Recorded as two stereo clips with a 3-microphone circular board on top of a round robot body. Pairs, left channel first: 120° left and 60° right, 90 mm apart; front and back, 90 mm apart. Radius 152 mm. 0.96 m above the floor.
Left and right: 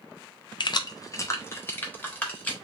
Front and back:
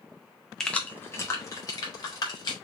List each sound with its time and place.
0.6 s keys jangling: 85° left, 0.6 m; by 2.5 s 45° left, 1.7 m